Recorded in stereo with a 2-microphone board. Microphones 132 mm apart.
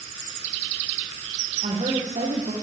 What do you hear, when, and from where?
1.6 s a woman speaking: 65° right (ahead or behind), 5 m